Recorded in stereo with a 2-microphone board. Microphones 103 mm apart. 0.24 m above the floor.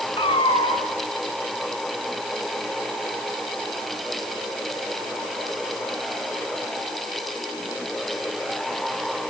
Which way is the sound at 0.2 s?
60° left (ahead or behind).